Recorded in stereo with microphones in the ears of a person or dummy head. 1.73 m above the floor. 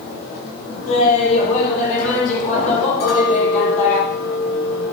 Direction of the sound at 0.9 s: 40° left (ahead or behind).